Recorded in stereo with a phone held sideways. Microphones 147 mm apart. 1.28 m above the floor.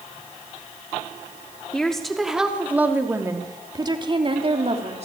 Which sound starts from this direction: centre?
A woman speaking, at 1.7 s.